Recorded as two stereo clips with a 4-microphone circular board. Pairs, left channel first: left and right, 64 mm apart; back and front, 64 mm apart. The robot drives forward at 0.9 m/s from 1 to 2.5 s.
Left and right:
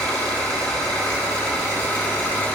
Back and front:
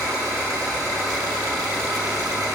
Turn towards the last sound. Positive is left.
turn(degrees=25)